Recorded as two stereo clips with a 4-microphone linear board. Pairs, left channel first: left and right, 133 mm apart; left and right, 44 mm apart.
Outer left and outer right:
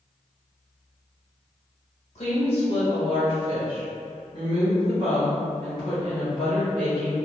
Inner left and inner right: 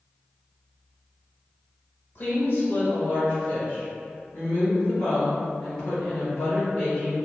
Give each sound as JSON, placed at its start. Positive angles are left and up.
{"t": 2.1, "sound": "a woman speaking", "side_deg": 55, "distance_m": 1.6}